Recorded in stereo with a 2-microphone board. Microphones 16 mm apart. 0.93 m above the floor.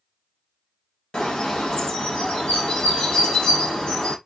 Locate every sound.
1.1 s a bird: 60° left (ahead or behind), 1.0 m